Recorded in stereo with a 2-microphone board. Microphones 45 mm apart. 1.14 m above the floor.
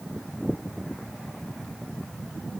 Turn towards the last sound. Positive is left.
No sound to turn to.